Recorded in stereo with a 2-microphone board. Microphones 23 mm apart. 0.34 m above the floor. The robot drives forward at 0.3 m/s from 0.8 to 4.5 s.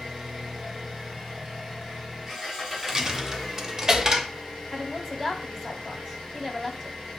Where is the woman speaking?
Centre (ahead or behind), 1.1 m.